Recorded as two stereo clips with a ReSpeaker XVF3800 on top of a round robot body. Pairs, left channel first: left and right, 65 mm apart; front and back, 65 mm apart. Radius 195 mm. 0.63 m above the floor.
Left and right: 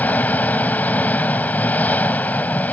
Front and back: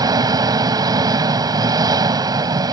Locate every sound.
0.0 s an engine running: 155° left